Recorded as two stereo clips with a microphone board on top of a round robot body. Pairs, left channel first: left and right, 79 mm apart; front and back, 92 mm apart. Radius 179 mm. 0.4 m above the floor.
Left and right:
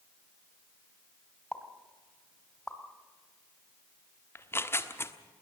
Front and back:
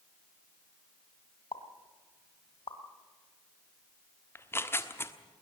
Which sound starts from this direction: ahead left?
Tearing paper, at 4.3 s.